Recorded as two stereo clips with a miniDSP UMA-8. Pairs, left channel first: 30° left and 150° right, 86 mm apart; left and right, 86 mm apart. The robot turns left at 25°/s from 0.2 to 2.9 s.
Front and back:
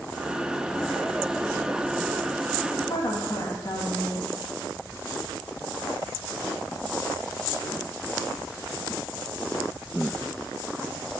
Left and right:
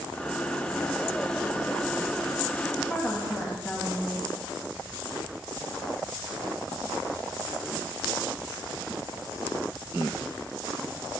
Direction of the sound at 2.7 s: 15° left.